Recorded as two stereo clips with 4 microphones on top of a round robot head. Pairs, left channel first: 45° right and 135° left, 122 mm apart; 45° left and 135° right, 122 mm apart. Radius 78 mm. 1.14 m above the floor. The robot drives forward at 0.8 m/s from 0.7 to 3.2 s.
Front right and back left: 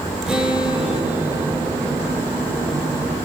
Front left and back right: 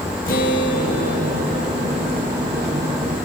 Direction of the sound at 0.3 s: 50° left.